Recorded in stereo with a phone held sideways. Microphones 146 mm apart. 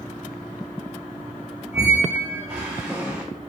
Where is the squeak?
15° right (ahead or behind), 1.5 m.